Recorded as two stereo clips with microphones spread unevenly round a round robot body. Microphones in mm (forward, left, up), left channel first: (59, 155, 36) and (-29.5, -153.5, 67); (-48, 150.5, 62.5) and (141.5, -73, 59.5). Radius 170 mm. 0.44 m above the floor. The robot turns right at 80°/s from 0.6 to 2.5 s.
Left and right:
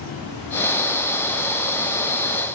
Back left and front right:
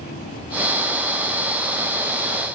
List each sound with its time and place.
Only background noise.